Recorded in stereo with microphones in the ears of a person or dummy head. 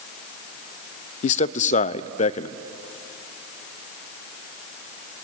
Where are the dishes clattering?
No dishes clattering in this recording.